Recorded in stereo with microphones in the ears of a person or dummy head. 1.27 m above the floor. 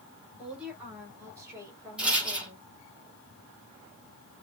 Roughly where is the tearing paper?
I don't hear tearing paper.